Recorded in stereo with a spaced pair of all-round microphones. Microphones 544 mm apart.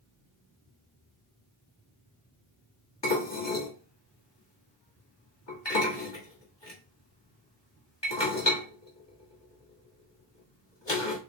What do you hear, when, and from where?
3.0 s dishes clattering: 50° left (ahead or behind), 1.9 m